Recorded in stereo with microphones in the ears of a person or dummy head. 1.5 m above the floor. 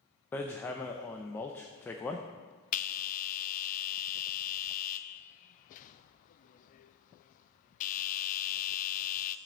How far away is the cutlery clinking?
No cutlery clinking in this recording.